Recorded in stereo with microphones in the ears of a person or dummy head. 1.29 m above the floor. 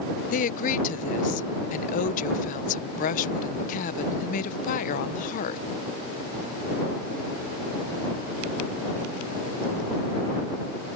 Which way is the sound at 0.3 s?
50° left (ahead or behind).